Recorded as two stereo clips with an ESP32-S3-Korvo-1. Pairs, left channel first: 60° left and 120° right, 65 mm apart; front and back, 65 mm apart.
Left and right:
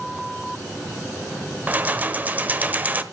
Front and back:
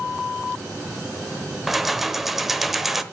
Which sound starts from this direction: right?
Keys jangling, at 1.7 s.